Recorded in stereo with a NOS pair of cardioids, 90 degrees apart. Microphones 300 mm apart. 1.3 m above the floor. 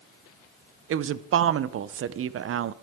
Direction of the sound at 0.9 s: 45° right.